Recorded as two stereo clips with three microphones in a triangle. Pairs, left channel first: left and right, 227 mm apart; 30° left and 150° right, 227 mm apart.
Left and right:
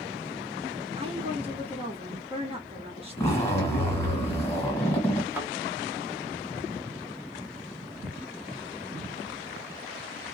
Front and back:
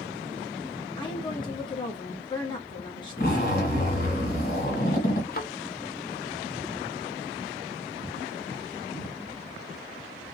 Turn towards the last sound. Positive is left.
turn(degrees=-10)